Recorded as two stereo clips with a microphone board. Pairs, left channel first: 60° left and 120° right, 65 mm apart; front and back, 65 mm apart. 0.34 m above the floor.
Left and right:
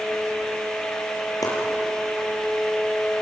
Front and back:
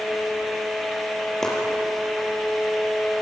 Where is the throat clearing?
No throat clearing in this recording.